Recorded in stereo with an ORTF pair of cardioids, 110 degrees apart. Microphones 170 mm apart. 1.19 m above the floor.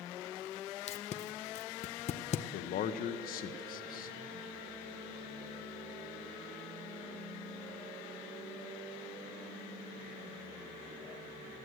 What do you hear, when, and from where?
0.9 s tape being pulled: 45° left, 0.6 m
2.5 s a man speaking: 65° left, 0.9 m